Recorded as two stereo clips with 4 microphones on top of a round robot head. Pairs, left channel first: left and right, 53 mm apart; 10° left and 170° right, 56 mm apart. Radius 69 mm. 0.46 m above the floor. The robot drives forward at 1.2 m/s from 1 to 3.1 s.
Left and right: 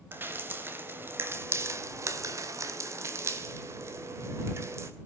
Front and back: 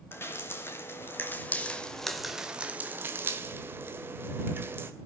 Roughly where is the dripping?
Ahead right.